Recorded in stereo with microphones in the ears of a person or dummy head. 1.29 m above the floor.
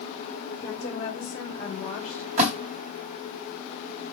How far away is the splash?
About 2.5 m.